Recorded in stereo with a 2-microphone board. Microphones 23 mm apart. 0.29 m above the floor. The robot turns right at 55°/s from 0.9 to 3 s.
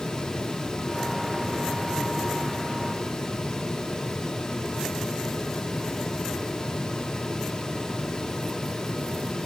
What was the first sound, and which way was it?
Only background noise.